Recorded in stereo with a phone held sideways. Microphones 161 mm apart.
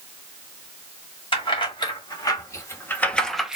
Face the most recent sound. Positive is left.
turn(degrees=-5)  # may be behind; listen again after turning